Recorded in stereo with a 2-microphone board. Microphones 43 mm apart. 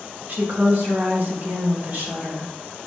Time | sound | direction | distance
0.3 | a woman speaking | 50° right (ahead or behind) | 1.2 m